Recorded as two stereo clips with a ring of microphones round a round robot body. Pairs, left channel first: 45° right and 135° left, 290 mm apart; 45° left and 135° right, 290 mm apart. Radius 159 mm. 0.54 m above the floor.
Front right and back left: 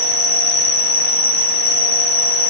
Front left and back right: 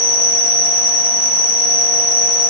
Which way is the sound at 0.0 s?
35° left.